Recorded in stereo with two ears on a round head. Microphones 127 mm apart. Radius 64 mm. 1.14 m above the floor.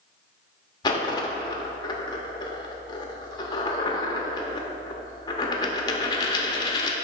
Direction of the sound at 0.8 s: 30° left (ahead or behind).